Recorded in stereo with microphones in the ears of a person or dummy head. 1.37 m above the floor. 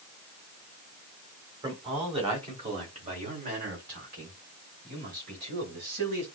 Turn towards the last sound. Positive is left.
turn(degrees=-60)  # may be behind; listen again after turning